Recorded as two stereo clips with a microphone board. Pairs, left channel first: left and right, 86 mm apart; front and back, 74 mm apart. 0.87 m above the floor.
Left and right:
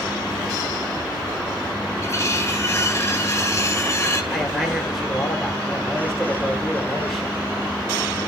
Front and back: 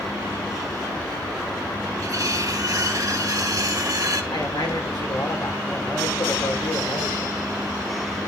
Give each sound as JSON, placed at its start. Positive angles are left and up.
{"t": 2.0, "sound": "cutlery clinking", "azimuth_deg": 145, "distance_m": 1.9}
{"t": 4.3, "sound": "a man speaking", "azimuth_deg": 0, "distance_m": 3.5}